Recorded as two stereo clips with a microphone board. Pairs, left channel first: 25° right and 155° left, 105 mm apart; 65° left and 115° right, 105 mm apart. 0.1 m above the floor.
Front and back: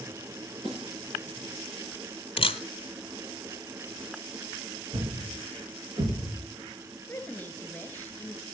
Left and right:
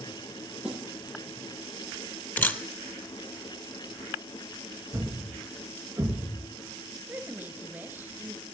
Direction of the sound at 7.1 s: 70° right.